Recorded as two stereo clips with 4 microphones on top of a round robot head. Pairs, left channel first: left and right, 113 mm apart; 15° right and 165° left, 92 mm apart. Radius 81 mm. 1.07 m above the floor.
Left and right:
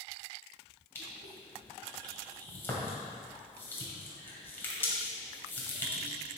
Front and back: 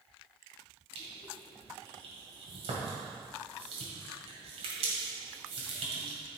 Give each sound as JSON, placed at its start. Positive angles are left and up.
{"t": 0.9, "sound": "crushing", "azimuth_deg": 160, "distance_m": 1.9}